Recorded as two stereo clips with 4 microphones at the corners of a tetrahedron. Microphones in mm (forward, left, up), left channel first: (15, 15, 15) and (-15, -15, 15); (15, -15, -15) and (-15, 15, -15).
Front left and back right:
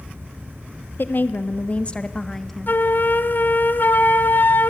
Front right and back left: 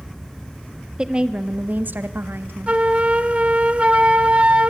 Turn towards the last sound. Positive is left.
turn(degrees=75)